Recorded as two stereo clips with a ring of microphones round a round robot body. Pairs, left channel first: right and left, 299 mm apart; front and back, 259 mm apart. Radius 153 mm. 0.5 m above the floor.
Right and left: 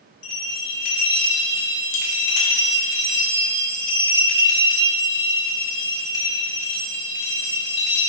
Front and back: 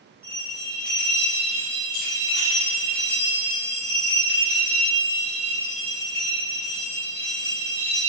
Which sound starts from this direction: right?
A bell, at 0.2 s.